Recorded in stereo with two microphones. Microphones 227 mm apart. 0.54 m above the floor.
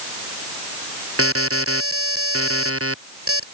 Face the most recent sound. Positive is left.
turn(degrees=-80)